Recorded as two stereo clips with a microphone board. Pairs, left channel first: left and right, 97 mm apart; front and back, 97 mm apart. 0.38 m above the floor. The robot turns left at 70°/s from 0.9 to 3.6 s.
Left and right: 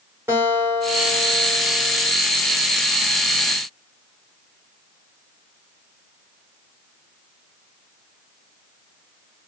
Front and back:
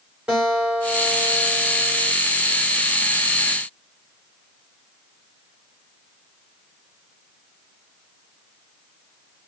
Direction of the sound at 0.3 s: 110° right.